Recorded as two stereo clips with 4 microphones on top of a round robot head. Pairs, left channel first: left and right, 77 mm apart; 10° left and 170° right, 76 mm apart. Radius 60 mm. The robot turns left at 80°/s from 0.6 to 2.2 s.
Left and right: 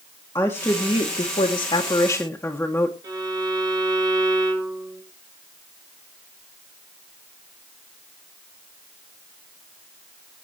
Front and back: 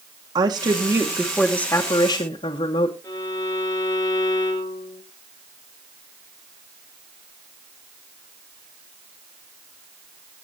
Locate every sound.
0.3 s a woman speaking: 150° left, 1.4 m; by 2.9 s 25° left, 1.4 m
3.0 s a violin: 55° right, 2.5 m